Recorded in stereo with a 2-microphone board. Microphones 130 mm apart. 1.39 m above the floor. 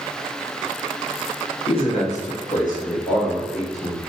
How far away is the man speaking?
About 0.9 m.